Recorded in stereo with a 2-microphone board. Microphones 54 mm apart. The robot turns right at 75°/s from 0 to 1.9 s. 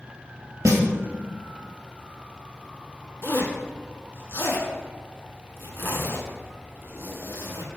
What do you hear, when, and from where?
0.7 s a snare drum: 75° right (ahead or behind), 0.8 m; by 0.8 s 70° right (ahead or behind), 0.8 m
3.2 s a zipper: 40° left (ahead or behind), 0.8 m